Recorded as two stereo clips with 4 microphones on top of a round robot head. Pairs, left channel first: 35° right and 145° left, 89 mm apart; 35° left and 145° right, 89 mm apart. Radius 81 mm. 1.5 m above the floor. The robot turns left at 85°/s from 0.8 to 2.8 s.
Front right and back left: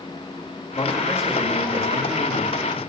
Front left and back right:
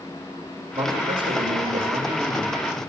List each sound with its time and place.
0.7 s a man speaking: 100° right, 2.5 m; by 2.8 s 90° left, 2.5 m